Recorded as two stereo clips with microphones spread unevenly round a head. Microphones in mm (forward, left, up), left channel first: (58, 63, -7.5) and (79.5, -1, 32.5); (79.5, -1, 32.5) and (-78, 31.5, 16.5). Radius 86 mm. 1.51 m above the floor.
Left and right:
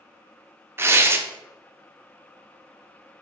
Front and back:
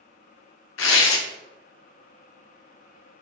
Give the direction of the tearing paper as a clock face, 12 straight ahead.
12 o'clock.